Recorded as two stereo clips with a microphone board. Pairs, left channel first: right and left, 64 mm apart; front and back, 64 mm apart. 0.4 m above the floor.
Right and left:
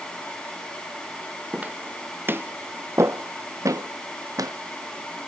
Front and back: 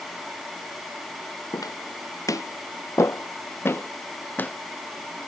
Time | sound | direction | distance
1.5 | footsteps | 20° left | ?